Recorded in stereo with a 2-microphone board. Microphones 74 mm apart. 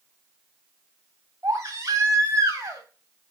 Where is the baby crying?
55° right (ahead or behind), 2.5 m.